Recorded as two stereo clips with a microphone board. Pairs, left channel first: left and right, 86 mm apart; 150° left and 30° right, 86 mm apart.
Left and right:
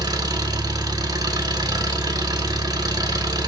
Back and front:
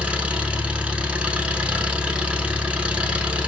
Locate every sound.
0.0 s an engine running: 100° right, 0.8 m